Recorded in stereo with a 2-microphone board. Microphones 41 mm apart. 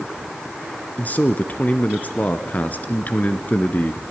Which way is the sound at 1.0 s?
40° left (ahead or behind).